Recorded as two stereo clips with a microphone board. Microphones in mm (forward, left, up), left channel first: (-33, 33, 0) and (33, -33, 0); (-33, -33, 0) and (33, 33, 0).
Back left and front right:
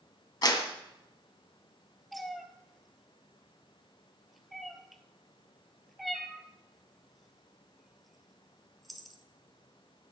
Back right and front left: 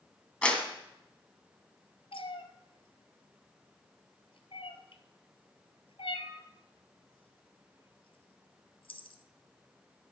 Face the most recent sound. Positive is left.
turn(degrees=-135)